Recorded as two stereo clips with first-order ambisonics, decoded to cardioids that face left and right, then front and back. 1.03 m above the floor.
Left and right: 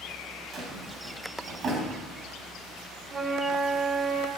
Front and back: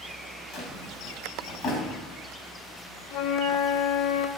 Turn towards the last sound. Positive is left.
turn(degrees=-20)